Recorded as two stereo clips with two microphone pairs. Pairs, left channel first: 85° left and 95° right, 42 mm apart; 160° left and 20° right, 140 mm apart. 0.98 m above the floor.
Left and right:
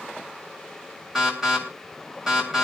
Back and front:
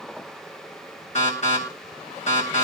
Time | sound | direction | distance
1.1 | an alarm | 165° right | 8 m